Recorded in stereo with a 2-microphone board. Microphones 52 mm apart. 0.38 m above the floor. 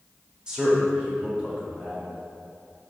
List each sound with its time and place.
0.5 s a man speaking: 15° right (ahead or behind), 0.8 m; by 2.1 s 25° right (ahead or behind), 1.6 m